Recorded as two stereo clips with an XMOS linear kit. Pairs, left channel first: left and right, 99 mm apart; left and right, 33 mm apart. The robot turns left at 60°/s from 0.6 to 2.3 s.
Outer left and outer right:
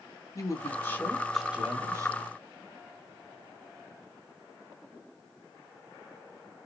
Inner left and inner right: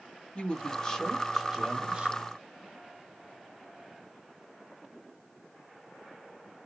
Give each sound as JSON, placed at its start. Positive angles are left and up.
{"t": 0.3, "sound": "a woman speaking", "azimuth_deg": 45, "distance_m": 1.6}